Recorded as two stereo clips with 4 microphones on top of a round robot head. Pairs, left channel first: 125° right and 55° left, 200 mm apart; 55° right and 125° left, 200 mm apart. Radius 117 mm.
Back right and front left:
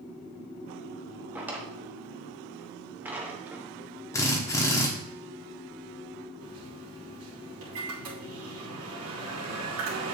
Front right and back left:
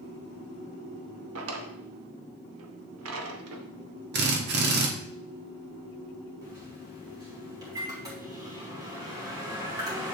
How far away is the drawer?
About 1.0 m.